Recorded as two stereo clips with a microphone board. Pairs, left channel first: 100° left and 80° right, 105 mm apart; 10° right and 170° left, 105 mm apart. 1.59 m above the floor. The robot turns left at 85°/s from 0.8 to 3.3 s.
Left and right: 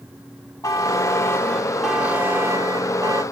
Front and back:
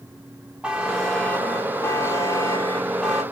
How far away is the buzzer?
About 0.9 m.